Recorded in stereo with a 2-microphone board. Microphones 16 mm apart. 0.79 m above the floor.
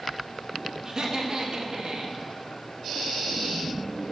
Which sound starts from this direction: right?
Laughter, at 0.8 s.